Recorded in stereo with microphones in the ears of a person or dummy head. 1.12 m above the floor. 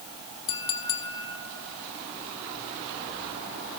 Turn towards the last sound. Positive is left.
turn(degrees=10)  # may be behind; listen again after turning